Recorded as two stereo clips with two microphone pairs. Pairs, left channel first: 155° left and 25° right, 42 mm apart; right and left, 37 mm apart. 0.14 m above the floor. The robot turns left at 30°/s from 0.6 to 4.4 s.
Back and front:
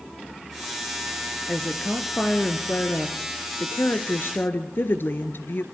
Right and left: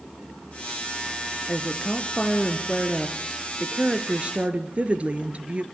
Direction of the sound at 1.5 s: 130° right.